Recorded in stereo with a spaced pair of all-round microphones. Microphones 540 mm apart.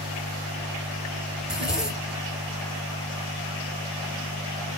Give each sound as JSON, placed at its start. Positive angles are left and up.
{"t": 1.4, "sound": "a zipper", "side_deg": 0, "distance_m": 1.0}